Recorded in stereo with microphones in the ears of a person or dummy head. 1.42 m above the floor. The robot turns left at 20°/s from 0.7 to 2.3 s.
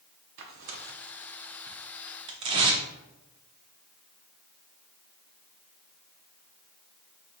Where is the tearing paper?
50° right (ahead or behind), 0.6 m; by 2.8 s 30° right (ahead or behind), 0.6 m.